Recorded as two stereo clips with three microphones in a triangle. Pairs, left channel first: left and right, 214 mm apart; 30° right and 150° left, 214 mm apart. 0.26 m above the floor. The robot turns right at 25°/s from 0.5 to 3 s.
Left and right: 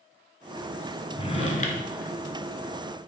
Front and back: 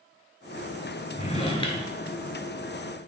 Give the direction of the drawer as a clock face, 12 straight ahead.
11 o'clock.